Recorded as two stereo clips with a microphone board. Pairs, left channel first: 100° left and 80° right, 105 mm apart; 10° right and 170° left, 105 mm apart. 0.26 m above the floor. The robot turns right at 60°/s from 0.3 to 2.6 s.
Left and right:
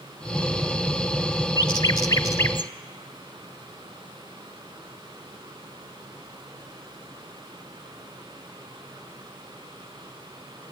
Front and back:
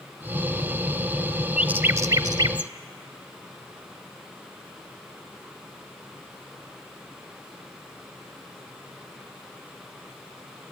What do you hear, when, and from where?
1.6 s a bird: 95° left, 0.6 m; by 2.7 s 155° left, 0.6 m